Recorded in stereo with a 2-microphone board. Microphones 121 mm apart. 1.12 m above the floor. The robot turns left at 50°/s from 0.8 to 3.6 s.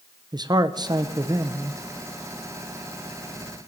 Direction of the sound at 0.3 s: 90° right.